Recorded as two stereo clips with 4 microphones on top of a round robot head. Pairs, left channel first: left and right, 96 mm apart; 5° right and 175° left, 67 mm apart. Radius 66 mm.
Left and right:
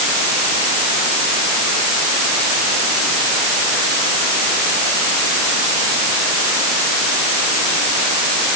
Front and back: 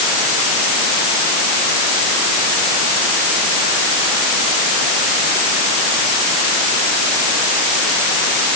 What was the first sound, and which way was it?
Only background noise.